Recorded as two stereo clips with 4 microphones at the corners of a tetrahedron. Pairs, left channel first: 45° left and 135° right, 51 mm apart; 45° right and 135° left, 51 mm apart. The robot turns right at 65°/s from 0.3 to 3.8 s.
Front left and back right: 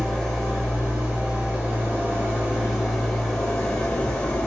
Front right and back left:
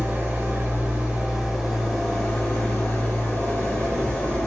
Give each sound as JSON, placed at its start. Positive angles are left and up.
{"t": 0.0, "sound": "an engine running", "azimuth_deg": 125, "distance_m": 1.2}